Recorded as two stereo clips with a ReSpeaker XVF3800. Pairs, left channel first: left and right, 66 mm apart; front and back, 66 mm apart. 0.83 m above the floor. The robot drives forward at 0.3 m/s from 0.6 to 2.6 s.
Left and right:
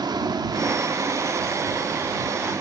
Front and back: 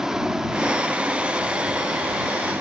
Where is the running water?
100° right, 0.9 m; by 2.6 s 130° right, 1.1 m.